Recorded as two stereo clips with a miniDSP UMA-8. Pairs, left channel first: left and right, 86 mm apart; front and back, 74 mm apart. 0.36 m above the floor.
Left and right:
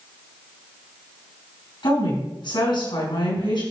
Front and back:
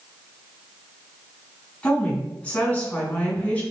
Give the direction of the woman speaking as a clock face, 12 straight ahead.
9 o'clock.